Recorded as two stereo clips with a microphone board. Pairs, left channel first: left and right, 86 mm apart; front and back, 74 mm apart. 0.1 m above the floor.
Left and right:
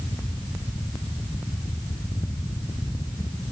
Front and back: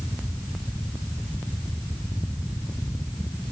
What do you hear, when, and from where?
Only background noise.